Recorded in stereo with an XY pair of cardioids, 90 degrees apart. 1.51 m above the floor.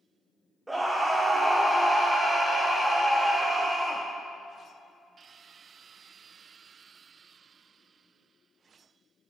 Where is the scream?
20° right, 0.8 m.